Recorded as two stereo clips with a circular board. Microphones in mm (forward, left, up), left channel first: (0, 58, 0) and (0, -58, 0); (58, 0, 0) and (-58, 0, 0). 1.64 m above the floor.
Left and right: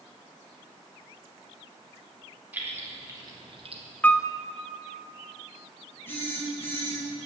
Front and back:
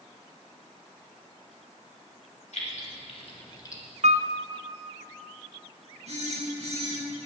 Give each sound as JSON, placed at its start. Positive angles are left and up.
{"t": 2.5, "sound": "keys jangling", "azimuth_deg": -15, "distance_m": 2.5}
{"t": 4.0, "sound": "a piano", "azimuth_deg": 165, "distance_m": 0.6}
{"t": 6.1, "sound": "a phone buzzing", "azimuth_deg": 160, "distance_m": 4.5}